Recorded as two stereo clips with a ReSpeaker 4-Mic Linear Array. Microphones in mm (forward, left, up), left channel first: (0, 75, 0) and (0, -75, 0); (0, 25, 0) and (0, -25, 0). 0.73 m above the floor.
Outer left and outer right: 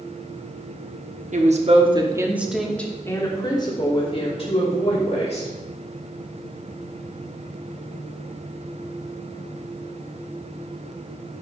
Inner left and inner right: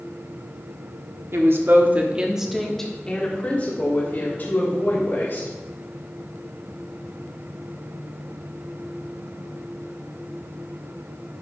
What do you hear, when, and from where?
1.3 s a woman speaking: 60° right (ahead or behind), 1.5 m; by 5.5 s 50° left (ahead or behind), 4 m